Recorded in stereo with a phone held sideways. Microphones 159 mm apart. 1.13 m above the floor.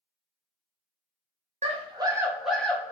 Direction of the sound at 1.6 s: 40° right (ahead or behind).